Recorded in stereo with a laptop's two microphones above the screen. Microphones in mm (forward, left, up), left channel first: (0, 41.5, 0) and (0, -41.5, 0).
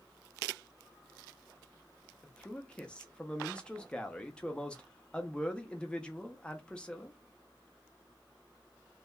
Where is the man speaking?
15° left (ahead or behind), 0.6 m.